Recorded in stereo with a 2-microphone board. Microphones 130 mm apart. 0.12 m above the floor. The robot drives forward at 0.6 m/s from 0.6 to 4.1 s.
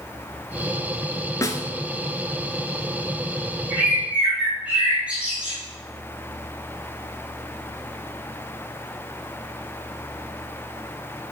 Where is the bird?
10° right (ahead or behind), 3 m.